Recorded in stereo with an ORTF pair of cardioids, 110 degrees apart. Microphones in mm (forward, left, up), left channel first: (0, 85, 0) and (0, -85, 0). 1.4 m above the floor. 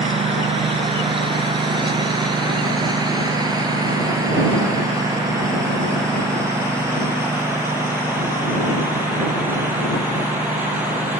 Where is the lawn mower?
35° right; by 11.2 s 10° right.